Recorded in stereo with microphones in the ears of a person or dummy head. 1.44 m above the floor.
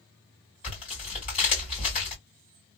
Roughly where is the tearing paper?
Left.